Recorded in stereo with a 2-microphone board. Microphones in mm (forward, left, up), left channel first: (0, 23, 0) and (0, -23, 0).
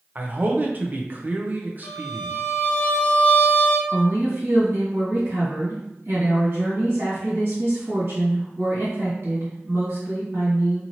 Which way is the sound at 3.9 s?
55° right (ahead or behind).